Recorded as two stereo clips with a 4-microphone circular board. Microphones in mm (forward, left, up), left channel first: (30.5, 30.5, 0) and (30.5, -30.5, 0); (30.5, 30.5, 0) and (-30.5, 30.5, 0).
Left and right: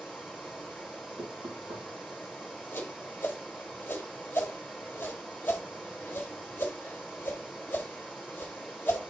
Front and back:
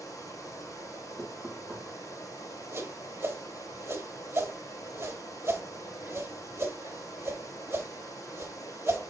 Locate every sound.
0.0 s running water: 5° right, 3 m
1.2 s knocking: 90° right, 4.5 m
2.7 s a whoosh: 145° left, 1.4 m